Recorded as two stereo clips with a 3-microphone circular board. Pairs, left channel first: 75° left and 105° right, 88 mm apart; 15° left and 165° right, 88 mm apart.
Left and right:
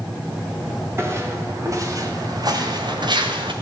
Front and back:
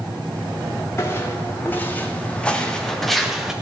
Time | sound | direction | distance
1.0 | footsteps | 45° right | 4 m